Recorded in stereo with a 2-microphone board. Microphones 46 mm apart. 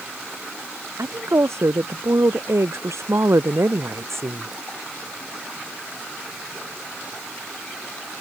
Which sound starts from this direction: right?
A woman speaking, at 1.0 s.